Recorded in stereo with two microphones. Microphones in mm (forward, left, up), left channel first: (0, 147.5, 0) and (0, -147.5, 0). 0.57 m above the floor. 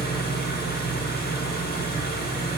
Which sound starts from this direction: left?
An engine running, at 0.0 s.